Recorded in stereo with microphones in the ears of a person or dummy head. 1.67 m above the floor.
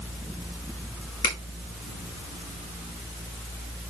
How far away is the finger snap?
About 2 m.